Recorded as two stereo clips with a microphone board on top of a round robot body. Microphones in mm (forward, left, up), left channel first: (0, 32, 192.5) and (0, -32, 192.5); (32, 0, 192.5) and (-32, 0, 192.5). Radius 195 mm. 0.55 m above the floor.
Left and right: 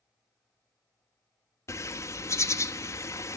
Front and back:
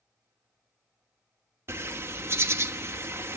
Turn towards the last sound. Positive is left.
turn(degrees=130)